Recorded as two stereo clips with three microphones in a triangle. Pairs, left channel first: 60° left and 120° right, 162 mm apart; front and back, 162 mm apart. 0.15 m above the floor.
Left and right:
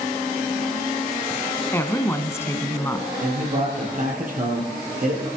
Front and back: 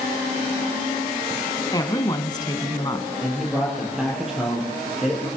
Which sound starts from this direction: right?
A man speaking, at 3.2 s.